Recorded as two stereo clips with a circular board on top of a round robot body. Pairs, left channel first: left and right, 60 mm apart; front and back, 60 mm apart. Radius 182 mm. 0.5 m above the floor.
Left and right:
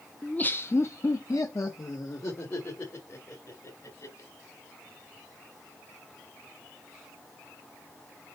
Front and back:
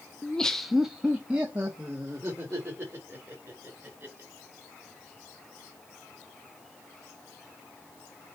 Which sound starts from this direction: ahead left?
Laughter, at 0.2 s.